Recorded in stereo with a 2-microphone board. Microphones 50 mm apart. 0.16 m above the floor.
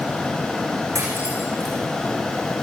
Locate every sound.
0.9 s cutlery clinking: 80° right, 7 m